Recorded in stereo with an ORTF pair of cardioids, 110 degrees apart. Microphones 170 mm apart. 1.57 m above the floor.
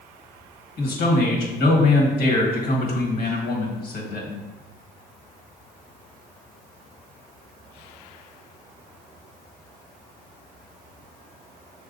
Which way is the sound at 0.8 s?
70° left.